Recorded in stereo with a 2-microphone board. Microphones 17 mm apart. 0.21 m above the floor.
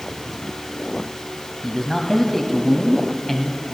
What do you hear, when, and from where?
1.6 s a man speaking: 20° left (ahead or behind), 1.2 m